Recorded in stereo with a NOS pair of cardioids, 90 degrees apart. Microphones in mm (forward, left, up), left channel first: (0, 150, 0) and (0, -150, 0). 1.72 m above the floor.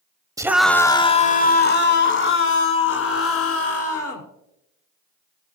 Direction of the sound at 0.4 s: 10° right.